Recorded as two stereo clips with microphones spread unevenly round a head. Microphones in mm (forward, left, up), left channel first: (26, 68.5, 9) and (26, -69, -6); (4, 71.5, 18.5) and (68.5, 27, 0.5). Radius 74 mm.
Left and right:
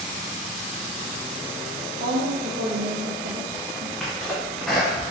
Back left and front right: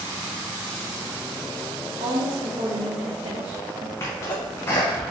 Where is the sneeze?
170° left, 0.6 m.